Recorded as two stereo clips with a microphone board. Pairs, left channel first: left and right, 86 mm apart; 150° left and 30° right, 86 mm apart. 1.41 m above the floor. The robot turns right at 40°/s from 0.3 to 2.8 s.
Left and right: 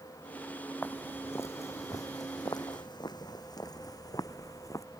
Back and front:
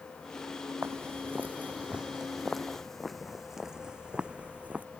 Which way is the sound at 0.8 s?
25° left.